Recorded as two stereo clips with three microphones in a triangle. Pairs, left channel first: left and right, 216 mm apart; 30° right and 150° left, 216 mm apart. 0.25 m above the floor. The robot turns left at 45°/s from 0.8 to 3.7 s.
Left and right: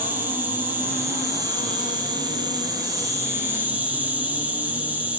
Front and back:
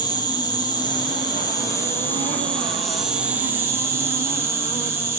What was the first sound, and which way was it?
An insect, 30° right.